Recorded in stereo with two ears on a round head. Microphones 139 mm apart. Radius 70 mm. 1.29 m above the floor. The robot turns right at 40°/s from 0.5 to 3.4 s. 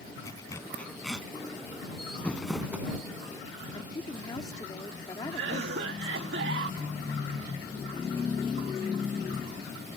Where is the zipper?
20° left (ahead or behind); by 1.3 s 10° right (ahead or behind).